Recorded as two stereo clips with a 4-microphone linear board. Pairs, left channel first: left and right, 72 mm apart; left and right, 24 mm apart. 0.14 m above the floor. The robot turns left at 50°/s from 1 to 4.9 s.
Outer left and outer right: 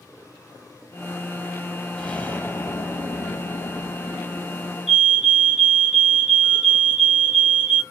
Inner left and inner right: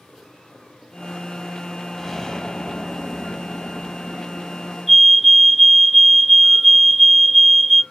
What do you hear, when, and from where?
2.0 s an explosion: 165° left, 1.4 m; by 4.8 s 25° left, 1.4 m
4.9 s a fire alarm: centre (ahead or behind), 3 m